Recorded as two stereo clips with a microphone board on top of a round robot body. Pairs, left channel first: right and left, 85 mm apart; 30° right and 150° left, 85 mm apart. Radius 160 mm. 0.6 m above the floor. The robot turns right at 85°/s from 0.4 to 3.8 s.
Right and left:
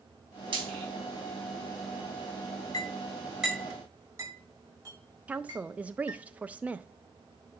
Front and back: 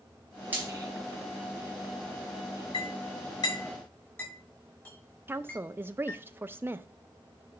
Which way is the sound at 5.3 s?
140° left.